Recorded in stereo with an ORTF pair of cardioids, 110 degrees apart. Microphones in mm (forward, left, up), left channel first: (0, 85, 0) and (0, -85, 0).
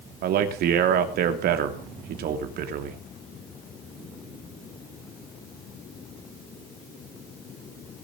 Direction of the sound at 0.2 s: 70° right.